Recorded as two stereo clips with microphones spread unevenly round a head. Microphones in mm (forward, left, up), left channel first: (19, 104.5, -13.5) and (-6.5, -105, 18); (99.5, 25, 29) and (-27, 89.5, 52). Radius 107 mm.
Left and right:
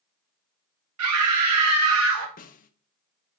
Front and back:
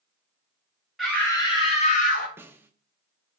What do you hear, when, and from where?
1.0 s a scream: 115° right, 1.6 m; by 2.3 s 60° right, 2 m
2.4 s a snare drum: 110° left, 0.6 m